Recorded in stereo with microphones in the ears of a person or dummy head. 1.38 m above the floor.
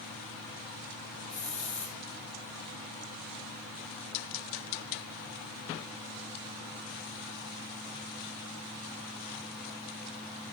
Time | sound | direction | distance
1.3 | a hiss | 35° left (ahead or behind) | 2 m